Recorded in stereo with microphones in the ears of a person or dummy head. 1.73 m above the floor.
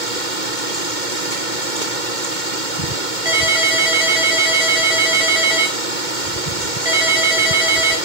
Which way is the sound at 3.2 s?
25° right (ahead or behind).